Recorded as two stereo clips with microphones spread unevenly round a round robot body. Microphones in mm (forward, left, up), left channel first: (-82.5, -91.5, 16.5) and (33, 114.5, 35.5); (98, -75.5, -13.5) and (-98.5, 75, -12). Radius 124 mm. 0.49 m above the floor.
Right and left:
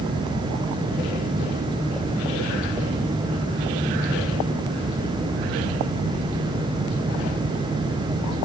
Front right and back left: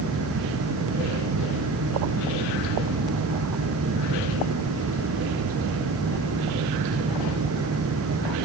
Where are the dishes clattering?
I don't hear dishes clattering.